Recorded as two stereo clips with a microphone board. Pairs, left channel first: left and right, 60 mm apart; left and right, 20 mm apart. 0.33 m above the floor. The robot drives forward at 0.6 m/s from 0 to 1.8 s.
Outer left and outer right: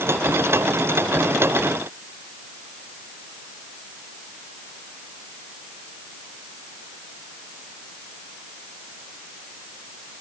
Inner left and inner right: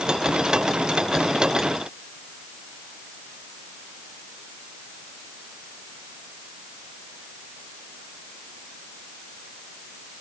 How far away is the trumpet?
No trumpet in this recording.